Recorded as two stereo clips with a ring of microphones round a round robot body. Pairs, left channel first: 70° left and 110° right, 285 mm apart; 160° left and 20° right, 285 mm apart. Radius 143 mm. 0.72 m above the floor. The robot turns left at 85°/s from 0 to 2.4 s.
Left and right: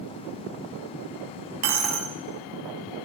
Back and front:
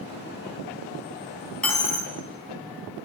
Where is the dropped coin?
115° right, 0.9 m; by 2.1 s 160° right, 0.9 m.